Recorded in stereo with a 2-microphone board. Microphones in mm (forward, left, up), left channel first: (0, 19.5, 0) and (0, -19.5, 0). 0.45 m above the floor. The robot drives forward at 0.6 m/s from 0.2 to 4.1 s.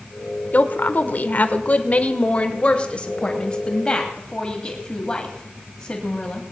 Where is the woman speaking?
45° left (ahead or behind), 1.1 m; by 6.4 s 20° left (ahead or behind), 2 m.